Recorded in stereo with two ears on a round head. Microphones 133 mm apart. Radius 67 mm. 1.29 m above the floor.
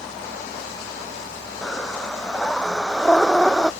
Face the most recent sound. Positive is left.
turn(degrees=5)  # may be behind; listen again after turning